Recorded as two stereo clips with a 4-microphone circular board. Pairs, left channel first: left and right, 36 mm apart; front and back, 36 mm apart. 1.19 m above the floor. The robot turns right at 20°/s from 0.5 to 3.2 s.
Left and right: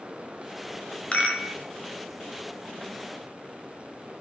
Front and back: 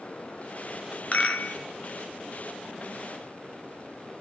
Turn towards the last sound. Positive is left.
turn(degrees=80)